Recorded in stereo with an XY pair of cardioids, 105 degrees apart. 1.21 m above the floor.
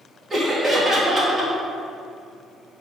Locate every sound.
0.3 s laughter: 30° right, 2.5 m